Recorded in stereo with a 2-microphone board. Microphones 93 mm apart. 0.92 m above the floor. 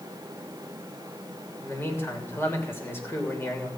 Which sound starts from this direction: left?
A man speaking, at 1.6 s.